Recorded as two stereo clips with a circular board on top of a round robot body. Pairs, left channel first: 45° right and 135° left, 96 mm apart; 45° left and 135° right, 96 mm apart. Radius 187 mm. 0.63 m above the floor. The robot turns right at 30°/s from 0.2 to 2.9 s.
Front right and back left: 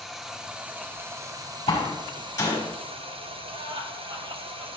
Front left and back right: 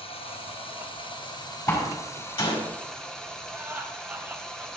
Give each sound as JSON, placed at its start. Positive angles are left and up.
{"t": 0.0, "sound": "running water", "azimuth_deg": 45, "distance_m": 2.0}
{"t": 1.7, "sound": "a door slam", "azimuth_deg": -10, "distance_m": 5.5}
{"t": 3.5, "sound": "laughter", "azimuth_deg": 155, "distance_m": 3.5}